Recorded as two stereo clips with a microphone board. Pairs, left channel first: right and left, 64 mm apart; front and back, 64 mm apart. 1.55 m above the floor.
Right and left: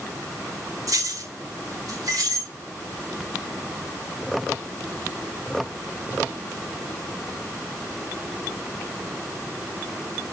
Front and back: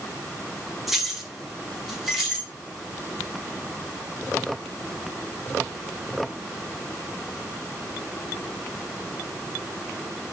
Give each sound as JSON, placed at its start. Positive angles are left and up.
{"t": 0.9, "sound": "keys jangling", "azimuth_deg": 95, "distance_m": 1.6}